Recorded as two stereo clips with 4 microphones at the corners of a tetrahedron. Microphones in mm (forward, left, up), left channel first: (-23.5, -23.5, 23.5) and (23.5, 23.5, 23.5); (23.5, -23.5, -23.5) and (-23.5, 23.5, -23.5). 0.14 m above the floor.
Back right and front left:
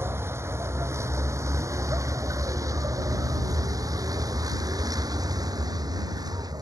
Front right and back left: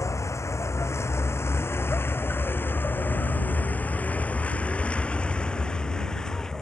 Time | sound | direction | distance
0.0 | a vehicle | 5° right | ?